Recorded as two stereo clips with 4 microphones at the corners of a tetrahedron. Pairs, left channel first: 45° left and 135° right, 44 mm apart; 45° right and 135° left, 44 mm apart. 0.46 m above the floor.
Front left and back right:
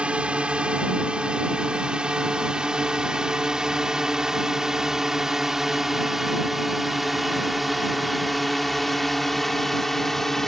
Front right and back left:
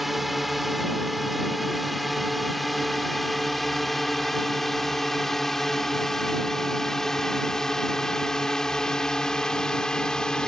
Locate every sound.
0.0 s a drone: 145° right; by 10.5 s 25° right